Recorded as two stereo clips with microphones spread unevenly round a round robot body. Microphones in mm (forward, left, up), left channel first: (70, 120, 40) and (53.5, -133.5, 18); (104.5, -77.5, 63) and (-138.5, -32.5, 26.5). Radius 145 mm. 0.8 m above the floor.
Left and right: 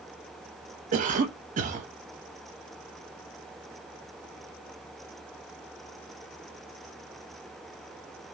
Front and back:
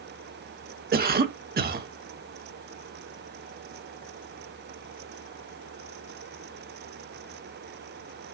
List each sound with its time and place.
0.9 s a cough: 150° right, 0.7 m